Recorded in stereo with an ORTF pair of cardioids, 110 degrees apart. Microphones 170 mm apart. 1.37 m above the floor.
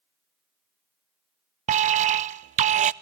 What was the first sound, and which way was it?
An alarm, 45° right.